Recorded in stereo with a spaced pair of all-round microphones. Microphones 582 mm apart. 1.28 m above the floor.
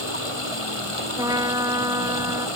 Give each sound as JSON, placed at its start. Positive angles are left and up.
{"t": 0.0, "sound": "running water", "side_deg": 65}
{"t": 1.2, "sound": "a trumpet", "side_deg": -10}